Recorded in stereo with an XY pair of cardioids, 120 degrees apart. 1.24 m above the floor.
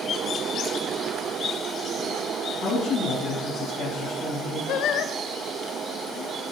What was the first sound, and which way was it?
A woman speaking, 70° left.